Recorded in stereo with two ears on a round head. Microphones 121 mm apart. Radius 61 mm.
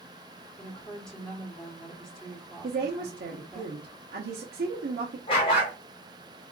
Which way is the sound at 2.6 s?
85° right.